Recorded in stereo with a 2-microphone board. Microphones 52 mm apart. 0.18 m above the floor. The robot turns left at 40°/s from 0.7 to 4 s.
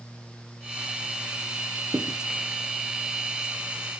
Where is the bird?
No bird in this recording.